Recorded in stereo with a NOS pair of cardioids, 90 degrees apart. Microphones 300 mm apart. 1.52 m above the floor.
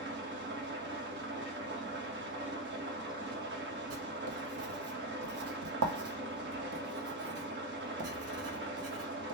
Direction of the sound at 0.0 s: 40° right.